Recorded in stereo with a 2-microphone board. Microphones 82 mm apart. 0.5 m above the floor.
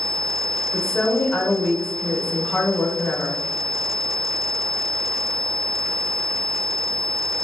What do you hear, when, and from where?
0.7 s a woman speaking: 5° left (ahead or behind), 0.7 m